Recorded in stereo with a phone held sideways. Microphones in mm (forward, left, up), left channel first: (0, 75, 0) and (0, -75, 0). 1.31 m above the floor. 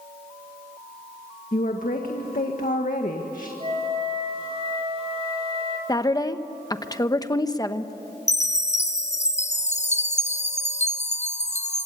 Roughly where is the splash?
I don't hear a splash.